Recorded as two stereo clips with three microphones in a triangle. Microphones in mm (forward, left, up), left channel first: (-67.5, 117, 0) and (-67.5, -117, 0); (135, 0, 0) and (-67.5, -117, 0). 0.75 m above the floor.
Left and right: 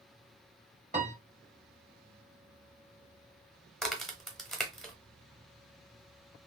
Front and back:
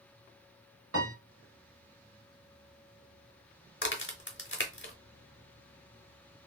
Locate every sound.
0.9 s a piano: 150° right, 1.8 m
3.8 s a crack: straight ahead, 0.9 m